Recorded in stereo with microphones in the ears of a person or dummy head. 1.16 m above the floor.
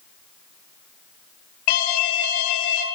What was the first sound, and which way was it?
An alarm, 45° left (ahead or behind).